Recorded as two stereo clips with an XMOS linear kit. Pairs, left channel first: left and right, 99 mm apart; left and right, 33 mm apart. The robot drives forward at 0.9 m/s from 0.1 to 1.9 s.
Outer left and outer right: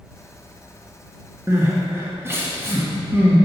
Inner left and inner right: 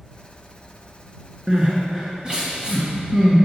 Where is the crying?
30° right (ahead or behind), 1.6 m; by 3.4 s 25° right (ahead or behind), 1.9 m.